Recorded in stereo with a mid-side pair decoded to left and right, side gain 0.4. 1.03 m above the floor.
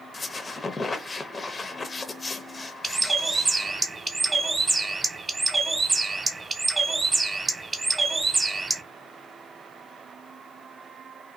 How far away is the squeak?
About 0.6 m.